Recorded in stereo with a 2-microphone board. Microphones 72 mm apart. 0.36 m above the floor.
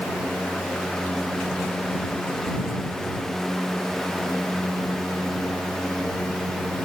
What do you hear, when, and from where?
Only background noise.